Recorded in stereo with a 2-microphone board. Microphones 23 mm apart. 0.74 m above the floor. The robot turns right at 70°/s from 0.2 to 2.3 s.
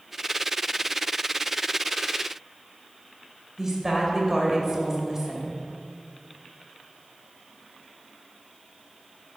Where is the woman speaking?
20° right (ahead or behind), 2.5 m.